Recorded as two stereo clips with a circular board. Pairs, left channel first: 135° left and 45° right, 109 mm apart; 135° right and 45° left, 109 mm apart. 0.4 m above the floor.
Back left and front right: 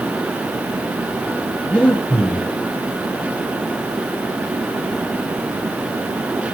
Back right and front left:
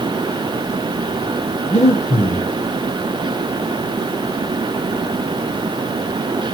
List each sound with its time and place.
1.7 s breathing: 145° right, 4 m